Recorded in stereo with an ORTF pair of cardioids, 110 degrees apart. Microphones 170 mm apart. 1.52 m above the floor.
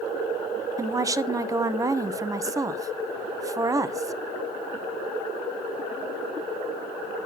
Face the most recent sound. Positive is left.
turn(degrees=-20)